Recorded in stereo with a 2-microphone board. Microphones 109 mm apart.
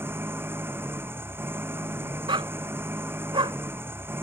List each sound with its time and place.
0.0 s an engine running: 20° right (ahead or behind)
2.3 s a dog barking: 50° right (ahead or behind)